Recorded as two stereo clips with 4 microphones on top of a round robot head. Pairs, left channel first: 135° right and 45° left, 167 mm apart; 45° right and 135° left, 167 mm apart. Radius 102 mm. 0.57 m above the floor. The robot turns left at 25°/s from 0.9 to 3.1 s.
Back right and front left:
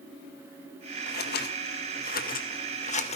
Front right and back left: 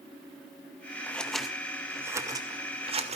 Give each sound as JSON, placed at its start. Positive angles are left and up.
{"t": 1.1, "sound": "scissors", "azimuth_deg": -130, "distance_m": 2.0}